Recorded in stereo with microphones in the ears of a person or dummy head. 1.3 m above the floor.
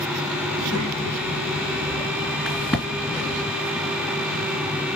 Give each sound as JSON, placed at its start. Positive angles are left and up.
{"t": 0.5, "sound": "a child speaking", "side_deg": -60, "distance_m": 1.4}
{"t": 2.5, "sound": "a crack", "side_deg": 5, "distance_m": 2.0}